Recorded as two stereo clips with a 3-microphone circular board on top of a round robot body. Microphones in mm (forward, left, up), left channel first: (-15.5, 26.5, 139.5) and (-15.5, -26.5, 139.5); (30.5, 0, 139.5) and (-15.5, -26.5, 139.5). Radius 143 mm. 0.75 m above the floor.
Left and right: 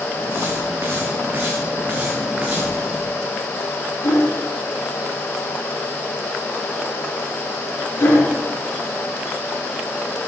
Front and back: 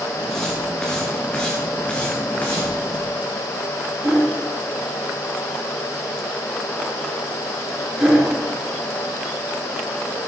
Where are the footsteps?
55° right, 3.5 m; by 2.9 s 15° right, 2.5 m.